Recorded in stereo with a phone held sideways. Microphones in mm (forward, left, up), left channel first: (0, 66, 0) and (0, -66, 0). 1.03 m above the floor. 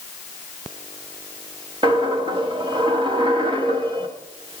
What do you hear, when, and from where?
1.8 s a dropped coin: 35° right (ahead or behind), 1.0 m